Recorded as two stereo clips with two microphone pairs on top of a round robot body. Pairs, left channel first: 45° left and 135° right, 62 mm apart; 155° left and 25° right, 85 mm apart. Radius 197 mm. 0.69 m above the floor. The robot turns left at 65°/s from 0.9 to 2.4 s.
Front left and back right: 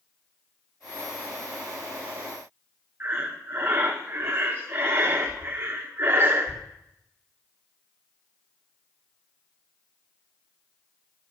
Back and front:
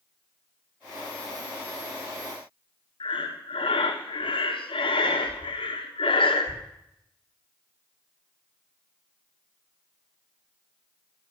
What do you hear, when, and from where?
3.0 s breathing: 170° left, 1.1 m